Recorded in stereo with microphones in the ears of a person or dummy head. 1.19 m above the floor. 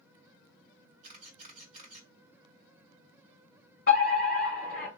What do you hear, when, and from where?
1.0 s a camera shutter: 45° right (ahead or behind), 1.7 m
3.9 s a fire alarm: 45° left (ahead or behind), 1.4 m